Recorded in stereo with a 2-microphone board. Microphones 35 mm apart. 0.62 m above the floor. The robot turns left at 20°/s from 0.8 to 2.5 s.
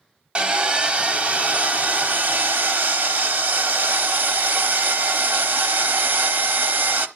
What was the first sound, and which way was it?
Sawing, 35° right.